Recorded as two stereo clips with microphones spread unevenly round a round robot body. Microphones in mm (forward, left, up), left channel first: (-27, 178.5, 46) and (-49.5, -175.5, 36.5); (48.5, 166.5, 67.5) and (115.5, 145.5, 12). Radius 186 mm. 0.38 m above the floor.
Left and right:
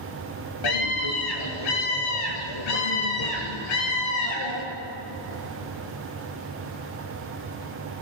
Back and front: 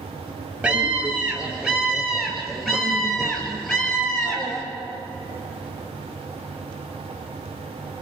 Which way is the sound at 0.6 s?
55° left.